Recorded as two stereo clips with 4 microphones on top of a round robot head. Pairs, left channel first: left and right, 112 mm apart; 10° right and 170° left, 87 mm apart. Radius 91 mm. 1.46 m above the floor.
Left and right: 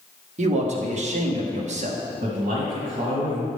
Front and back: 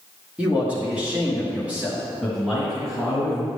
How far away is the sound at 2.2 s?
About 2 m.